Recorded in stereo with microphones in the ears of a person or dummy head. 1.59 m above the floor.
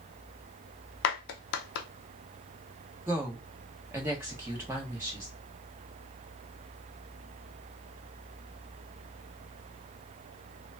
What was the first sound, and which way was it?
A clap, 60° left (ahead or behind).